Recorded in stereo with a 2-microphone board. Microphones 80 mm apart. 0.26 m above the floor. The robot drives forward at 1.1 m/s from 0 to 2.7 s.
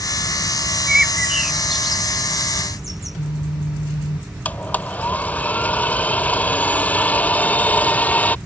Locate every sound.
0.9 s a bird: 10° right (ahead or behind); by 3.2 s centre (ahead or behind)
3.0 s a phone buzzing: 70° left (ahead or behind)
4.5 s a blender: 20° left (ahead or behind)